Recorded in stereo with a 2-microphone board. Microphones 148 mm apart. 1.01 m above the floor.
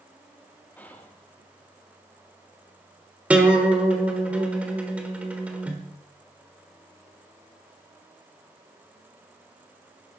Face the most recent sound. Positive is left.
turn(degrees=-10)  # may be behind; listen again after turning